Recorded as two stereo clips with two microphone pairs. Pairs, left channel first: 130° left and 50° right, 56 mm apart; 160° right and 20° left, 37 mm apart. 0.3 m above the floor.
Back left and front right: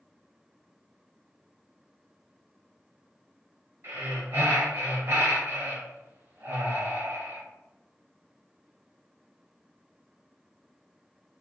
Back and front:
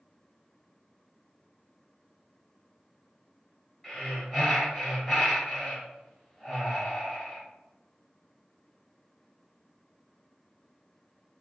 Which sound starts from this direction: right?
Breathing, at 3.8 s.